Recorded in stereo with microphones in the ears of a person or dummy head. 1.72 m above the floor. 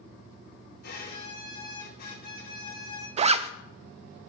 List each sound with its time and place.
0.8 s a violin: 55° left (ahead or behind), 2.5 m
3.2 s a zipper: 30° right (ahead or behind), 0.6 m